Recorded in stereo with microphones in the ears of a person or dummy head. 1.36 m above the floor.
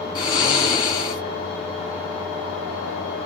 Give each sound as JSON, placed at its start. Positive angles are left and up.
{"t": 0.1, "sound": "snoring", "side_deg": 25, "distance_m": 1.8}